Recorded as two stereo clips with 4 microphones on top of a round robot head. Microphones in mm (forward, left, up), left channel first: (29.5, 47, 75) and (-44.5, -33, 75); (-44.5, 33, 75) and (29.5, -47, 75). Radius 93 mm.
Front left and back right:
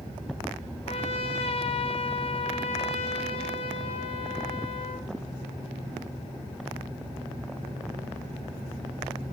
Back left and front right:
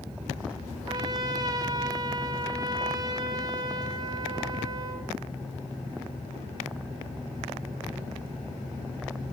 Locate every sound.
0.9 s a trumpet: 10° left, 1.7 m